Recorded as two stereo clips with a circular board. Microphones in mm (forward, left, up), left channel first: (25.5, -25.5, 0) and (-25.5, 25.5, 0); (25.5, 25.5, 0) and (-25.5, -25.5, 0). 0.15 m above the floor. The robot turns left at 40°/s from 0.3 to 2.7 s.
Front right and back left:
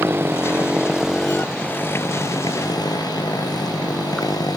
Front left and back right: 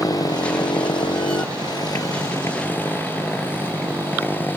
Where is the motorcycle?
80° left; by 4.6 s 20° right.